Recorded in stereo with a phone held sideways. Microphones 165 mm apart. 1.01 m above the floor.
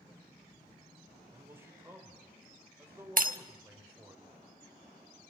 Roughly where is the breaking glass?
Right.